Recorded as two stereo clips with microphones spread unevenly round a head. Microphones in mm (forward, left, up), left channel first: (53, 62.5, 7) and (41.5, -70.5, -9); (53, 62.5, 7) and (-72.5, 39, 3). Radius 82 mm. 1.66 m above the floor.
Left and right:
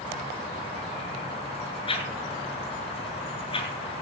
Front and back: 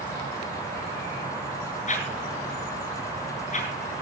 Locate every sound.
1.9 s a whoosh: 35° left, 7.5 m